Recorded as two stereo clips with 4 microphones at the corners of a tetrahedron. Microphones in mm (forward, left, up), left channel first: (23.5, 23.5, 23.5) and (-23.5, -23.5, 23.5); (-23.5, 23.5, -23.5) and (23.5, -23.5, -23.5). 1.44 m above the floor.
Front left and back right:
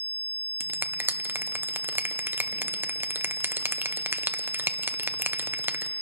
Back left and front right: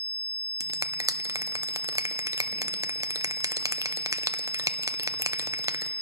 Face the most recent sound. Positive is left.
turn(degrees=-80)